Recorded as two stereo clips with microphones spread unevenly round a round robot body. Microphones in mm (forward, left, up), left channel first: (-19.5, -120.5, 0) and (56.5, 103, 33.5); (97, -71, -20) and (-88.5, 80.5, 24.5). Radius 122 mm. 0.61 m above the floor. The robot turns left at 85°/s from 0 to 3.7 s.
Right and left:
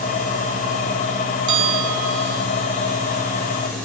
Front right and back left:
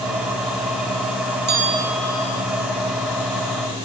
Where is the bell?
90° left; by 2.4 s 10° left.